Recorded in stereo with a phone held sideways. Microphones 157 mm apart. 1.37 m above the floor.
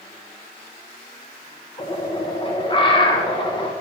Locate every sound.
1.8 s a bird: 30° left (ahead or behind), 1.4 m